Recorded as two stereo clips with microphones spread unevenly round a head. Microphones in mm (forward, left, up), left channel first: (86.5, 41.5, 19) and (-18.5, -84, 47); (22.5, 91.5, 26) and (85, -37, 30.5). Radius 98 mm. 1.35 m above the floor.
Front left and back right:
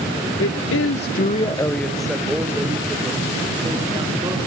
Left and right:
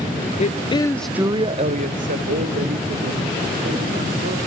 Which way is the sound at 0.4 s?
75° left.